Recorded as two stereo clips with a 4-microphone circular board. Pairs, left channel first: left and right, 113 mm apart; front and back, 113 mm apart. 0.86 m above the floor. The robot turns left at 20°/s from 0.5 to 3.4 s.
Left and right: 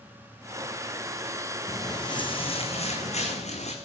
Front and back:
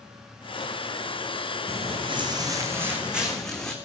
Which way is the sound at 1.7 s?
155° left.